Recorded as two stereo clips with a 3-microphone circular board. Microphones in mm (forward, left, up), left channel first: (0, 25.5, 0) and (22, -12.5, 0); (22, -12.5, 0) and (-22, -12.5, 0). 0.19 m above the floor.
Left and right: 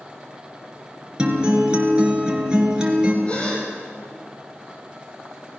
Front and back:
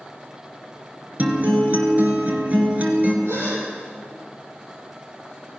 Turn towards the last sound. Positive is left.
turn(degrees=-175)